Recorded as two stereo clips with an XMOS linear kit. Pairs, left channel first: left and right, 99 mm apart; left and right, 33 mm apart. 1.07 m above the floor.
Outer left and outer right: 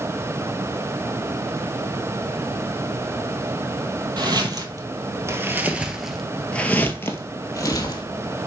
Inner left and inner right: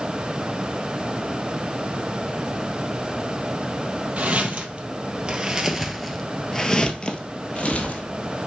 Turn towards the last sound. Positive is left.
turn(degrees=40)  # may be behind; listen again after turning